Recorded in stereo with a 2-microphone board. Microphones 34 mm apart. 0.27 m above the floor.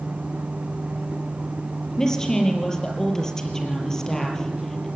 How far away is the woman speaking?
About 6 m.